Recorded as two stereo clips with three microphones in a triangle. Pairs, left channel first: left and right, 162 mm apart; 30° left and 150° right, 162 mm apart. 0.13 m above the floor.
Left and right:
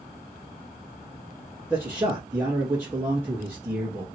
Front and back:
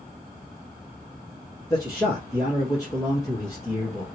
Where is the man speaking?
20° right, 1.4 m.